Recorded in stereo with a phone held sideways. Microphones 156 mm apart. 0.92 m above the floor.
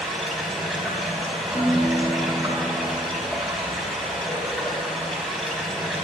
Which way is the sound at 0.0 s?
Centre (ahead or behind).